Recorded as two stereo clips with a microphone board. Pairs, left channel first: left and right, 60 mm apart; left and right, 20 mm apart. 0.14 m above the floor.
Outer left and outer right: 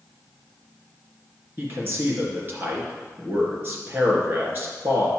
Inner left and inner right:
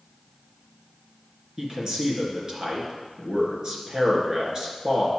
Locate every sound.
1.6 s a man speaking: 35° right (ahead or behind), 2.5 m